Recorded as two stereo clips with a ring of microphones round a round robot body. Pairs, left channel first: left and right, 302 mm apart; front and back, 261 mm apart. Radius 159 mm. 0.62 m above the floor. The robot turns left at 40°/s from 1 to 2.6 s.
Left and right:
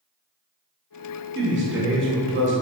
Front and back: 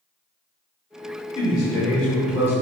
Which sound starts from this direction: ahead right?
A man speaking, at 1.4 s.